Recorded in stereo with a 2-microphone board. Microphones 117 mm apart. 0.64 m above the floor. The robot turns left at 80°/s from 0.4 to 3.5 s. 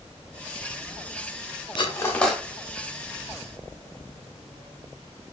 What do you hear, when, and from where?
1.8 s cutlery clinking: 45° left (ahead or behind), 0.6 m; by 2.4 s 5° right (ahead or behind), 0.6 m